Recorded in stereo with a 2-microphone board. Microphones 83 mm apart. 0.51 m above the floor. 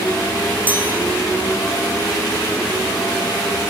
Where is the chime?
20° right (ahead or behind), 9.5 m.